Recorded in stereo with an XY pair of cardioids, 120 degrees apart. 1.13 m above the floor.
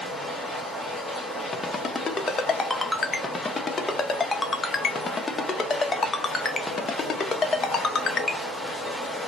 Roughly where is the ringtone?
Ahead left.